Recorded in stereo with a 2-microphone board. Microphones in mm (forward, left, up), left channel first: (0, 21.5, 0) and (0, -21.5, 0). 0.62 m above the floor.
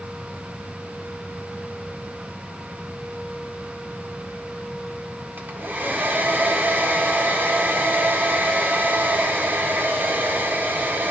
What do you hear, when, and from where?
5.4 s a hair dryer: 50° right (ahead or behind), 1.4 m